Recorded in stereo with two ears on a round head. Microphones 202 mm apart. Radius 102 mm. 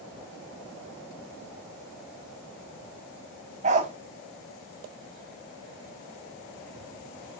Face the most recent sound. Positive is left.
turn(degrees=-30)  # may be behind; listen again after turning